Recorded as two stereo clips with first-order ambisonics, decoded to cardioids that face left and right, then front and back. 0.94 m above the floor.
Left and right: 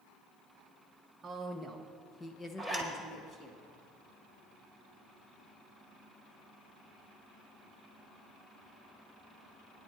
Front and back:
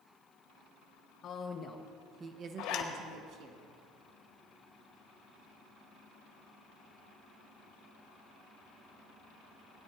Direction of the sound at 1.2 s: 20° right.